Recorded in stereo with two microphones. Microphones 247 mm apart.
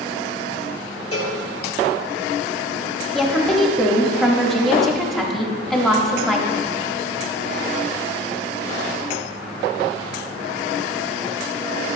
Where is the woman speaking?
Centre (ahead or behind), 1.1 m.